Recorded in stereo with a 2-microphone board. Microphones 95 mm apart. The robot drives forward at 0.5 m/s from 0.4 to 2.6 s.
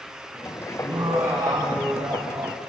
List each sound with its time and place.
0.8 s laughter: 40° right (ahead or behind), 2.5 m; by 2.6 s 50° right (ahead or behind), 2 m